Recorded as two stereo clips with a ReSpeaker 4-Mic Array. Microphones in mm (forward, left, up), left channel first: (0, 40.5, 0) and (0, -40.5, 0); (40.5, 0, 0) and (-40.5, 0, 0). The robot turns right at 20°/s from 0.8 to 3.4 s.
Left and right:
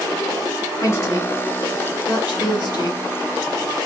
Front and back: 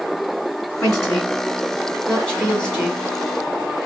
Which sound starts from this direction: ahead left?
A woman speaking, at 0.8 s.